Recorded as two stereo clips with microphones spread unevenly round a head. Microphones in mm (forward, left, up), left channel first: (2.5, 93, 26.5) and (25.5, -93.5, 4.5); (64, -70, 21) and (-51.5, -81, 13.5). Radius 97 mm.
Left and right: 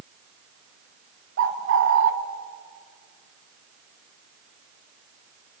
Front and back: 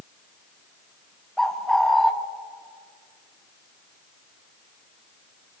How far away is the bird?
About 1.7 m.